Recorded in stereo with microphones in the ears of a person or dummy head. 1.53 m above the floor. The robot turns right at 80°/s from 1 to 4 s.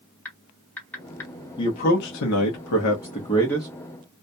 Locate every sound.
0.2 s typing on a keyboard: 10° left (ahead or behind), 1.3 m; by 1.3 s 20° left (ahead or behind), 1.3 m
1.6 s a man speaking: 20° left, 0.7 m; by 3.7 s 170° right, 0.7 m